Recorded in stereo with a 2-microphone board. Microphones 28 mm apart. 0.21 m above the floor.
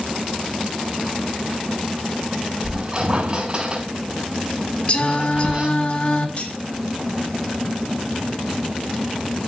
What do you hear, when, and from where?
2.6 s a squeak: 35° right (ahead or behind), 6.5 m
4.9 s singing: 40° left (ahead or behind), 2.5 m
6.4 s cutlery clinking: 40° left (ahead or behind), 3 m